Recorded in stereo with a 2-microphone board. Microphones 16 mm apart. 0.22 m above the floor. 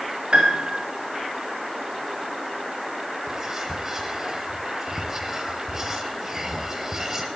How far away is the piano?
About 4 m.